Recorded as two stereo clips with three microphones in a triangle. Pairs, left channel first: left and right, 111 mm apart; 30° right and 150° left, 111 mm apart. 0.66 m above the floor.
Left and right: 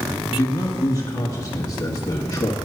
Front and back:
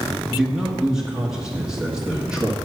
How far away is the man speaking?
About 1.0 m.